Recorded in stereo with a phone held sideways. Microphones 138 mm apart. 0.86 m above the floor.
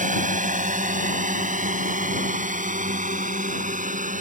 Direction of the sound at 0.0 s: 65° right (ahead or behind).